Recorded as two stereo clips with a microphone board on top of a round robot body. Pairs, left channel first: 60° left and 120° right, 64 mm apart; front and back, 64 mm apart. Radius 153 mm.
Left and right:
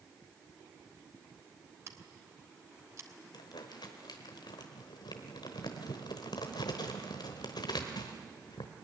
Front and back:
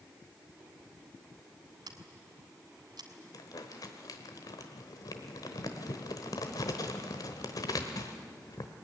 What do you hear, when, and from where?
1.9 s scissors: 170° right, 2 m
3.3 s crumpling: 40° left, 1.0 m